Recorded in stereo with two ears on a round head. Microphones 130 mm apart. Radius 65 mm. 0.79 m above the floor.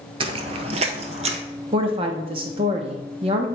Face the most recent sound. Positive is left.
turn(degrees=-35)  # may be behind; listen again after turning